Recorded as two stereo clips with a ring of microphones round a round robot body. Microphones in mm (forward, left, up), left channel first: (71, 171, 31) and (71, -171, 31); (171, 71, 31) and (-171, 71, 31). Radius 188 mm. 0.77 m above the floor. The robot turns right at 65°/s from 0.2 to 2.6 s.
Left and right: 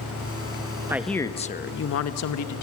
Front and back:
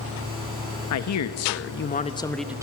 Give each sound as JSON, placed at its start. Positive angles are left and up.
{"t": 0.9, "sound": "a man speaking", "azimuth_deg": -10, "distance_m": 0.9}